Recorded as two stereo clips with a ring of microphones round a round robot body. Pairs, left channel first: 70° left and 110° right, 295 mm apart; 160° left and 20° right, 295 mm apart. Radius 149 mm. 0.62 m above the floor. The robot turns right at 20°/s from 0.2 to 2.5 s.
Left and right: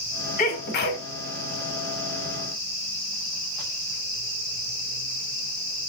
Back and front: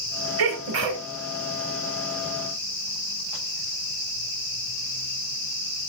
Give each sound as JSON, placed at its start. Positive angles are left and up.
{"t": 0.4, "sound": "a sneeze", "azimuth_deg": 5, "distance_m": 2.0}